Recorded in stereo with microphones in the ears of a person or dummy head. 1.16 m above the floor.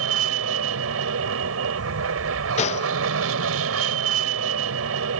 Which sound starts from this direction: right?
An aircraft, at 0.0 s.